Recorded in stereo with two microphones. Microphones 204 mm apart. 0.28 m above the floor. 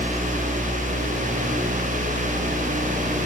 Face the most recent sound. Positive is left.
No sound to turn to.